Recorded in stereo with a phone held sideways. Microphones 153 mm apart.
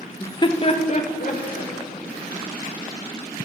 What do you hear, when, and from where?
0.2 s laughter: 15° left (ahead or behind), 0.6 m; by 1.7 s 55° left (ahead or behind), 2.0 m